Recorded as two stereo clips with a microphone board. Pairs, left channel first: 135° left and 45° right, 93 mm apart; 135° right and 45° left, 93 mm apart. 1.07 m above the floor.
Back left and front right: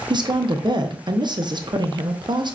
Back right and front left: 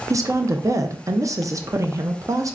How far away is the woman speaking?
About 0.5 m.